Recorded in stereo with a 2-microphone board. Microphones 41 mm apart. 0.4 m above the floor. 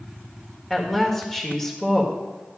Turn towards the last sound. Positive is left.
turn(degrees=10)  # may be behind; listen again after turning